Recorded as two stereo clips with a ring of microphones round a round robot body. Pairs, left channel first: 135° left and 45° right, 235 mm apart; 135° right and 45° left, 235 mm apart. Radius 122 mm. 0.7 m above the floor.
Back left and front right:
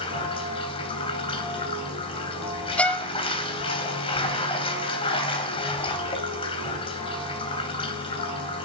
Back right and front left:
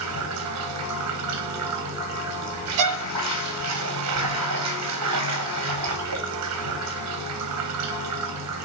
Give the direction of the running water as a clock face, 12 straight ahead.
10 o'clock.